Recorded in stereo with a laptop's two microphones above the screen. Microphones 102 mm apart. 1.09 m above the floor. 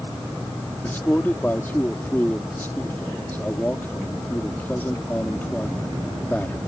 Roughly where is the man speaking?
Centre.